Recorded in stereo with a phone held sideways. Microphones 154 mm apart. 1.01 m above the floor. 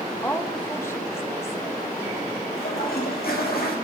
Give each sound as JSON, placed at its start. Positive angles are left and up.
{"t": 0.2, "sound": "a woman speaking", "side_deg": 15, "distance_m": 0.9}
{"t": 2.5, "sound": "a toilet flushing", "side_deg": 80, "distance_m": 1.6}